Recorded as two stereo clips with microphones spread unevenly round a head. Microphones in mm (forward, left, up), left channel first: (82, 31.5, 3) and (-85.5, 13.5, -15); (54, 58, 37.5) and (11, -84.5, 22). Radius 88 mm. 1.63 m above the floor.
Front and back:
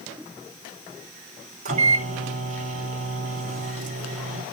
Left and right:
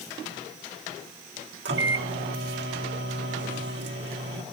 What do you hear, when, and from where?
1.6 s a microwave: 125° right, 2.5 m